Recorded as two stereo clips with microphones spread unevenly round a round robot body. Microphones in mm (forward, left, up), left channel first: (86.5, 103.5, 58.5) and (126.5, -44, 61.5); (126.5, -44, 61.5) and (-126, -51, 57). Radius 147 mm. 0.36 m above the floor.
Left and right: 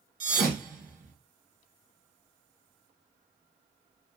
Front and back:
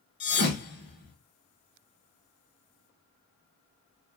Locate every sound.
0.2 s a thud: 45° right, 1.6 m